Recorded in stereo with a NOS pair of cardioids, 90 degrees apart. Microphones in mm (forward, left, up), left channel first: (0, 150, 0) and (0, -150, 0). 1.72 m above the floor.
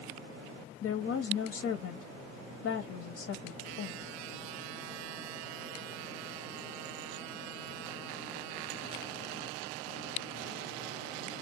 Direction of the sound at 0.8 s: 50° left.